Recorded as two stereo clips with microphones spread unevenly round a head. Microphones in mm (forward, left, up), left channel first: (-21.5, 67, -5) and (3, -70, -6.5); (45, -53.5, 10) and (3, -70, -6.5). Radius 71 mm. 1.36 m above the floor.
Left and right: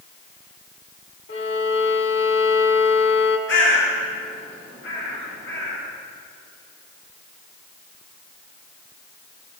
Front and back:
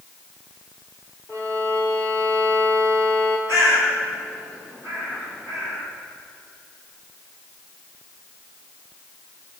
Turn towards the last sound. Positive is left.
turn(degrees=90)